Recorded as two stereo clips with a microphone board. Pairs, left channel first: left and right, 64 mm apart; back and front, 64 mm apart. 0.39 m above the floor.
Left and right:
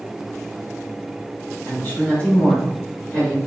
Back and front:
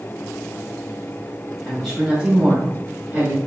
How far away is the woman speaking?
About 1.4 m.